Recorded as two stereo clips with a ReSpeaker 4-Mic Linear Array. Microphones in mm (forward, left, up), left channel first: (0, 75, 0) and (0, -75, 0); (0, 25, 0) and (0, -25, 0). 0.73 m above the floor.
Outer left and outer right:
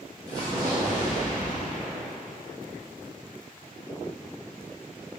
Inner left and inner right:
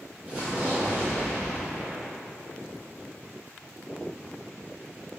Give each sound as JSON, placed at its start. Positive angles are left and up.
{"t": 0.3, "sound": "an explosion", "side_deg": -25, "distance_m": 1.2}